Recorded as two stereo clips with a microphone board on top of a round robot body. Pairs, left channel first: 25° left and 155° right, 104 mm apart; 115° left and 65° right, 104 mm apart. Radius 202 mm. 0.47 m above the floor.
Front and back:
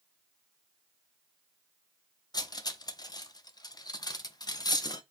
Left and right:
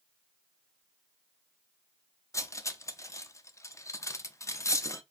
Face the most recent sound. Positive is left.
turn(degrees=60)